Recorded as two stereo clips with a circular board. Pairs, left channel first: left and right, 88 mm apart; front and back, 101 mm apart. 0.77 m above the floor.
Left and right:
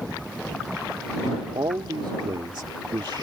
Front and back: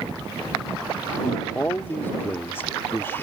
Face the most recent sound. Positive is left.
turn(degrees=-65)